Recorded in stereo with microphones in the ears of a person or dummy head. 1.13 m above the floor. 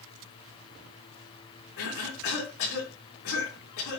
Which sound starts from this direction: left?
A cough, at 1.8 s.